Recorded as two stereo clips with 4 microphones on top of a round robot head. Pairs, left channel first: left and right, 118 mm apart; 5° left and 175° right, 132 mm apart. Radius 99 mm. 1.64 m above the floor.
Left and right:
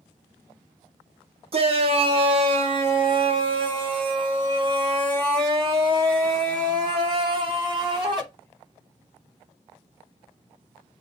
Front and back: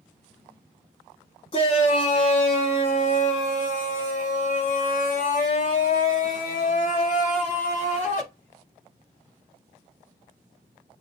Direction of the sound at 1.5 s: 55° right.